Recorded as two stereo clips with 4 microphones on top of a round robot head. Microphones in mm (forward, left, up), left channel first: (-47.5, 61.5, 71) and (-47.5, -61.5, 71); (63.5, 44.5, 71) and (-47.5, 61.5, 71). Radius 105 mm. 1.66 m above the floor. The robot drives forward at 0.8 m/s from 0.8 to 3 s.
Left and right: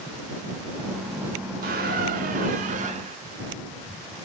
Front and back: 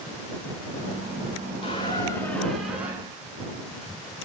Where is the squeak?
70° right, 1.6 m; by 3.2 s 110° right, 1.6 m.